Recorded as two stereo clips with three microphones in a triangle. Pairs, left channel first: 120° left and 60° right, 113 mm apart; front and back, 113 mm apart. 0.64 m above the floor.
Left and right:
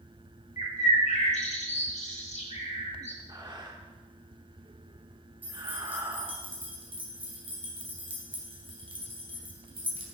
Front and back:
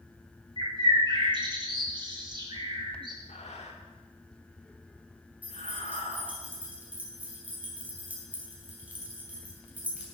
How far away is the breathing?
About 1.3 m.